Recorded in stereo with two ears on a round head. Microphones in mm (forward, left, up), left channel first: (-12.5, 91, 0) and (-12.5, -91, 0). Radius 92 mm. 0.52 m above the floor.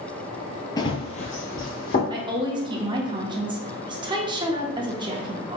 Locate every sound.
0.8 s running footsteps: 20° left (ahead or behind), 0.6 m; by 2.0 s 45° left (ahead or behind), 1.4 m
2.1 s a woman speaking: 25° right (ahead or behind), 0.7 m